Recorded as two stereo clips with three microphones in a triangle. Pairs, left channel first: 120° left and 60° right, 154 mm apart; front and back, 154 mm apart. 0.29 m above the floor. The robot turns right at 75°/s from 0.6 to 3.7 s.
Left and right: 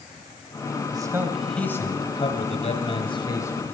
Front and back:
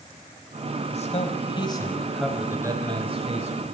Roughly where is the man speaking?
Ahead.